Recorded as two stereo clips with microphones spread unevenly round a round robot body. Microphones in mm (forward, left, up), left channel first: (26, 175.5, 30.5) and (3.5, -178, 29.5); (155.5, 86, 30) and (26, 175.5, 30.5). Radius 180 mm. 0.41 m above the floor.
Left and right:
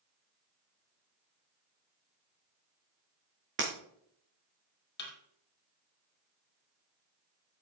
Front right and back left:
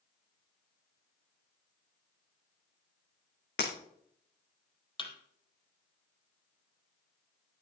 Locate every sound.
3.6 s breaking glass: 35° right, 3.5 m
5.0 s a thud: 25° left, 4 m